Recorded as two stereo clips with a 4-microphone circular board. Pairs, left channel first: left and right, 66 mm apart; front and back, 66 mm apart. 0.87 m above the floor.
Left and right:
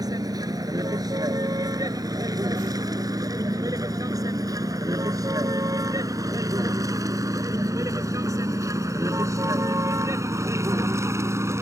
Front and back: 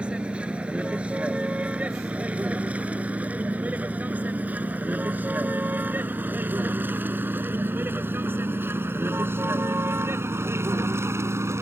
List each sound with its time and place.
0.0 s a vehicle: 105° right; by 11.6 s 135° right